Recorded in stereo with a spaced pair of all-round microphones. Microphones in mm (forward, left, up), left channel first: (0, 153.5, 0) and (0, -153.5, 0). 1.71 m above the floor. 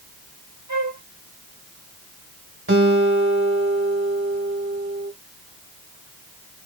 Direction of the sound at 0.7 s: 65° right (ahead or behind).